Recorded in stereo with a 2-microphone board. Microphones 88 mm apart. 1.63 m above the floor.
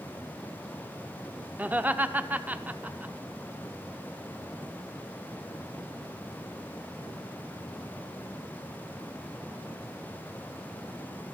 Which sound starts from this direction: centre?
Laughter, at 1.6 s.